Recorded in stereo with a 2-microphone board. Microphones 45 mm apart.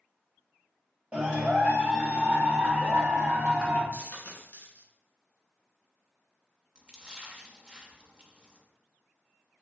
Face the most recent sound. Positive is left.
turn(degrees=-20)  # may be behind; listen again after turning